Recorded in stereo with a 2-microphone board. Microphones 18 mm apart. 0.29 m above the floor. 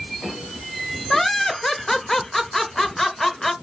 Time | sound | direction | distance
1.1 | laughter | 20° left (ahead or behind) | 0.9 m